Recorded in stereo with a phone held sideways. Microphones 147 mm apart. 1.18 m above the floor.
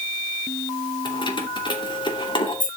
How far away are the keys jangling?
About 2.5 m.